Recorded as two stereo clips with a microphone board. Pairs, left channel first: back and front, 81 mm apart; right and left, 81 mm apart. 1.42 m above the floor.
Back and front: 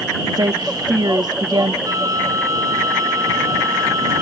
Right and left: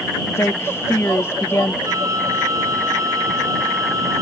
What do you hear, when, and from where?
0.3 s a woman speaking: 30° right
1.9 s a flute: 45° left